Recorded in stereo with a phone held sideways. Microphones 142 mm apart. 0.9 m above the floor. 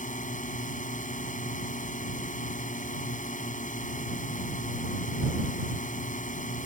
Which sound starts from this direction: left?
A drone, at 0.0 s.